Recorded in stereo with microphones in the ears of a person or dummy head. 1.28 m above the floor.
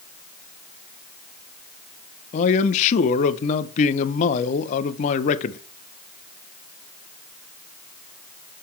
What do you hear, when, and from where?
2.3 s a man speaking: 40° left (ahead or behind), 0.7 m